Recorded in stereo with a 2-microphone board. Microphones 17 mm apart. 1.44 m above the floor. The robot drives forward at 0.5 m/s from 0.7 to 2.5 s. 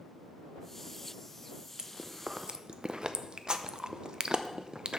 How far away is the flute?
I don't hear a flute.